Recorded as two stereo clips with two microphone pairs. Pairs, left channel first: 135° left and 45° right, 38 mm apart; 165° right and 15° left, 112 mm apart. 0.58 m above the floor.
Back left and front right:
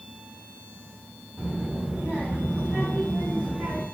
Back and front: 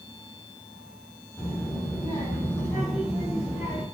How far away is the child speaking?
About 3 m.